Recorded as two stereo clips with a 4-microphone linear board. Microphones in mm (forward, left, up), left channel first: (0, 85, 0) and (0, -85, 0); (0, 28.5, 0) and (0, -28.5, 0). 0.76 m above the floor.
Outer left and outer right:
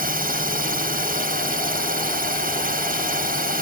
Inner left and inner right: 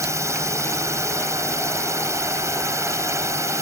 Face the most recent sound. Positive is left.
turn(degrees=-55)  # may be behind; listen again after turning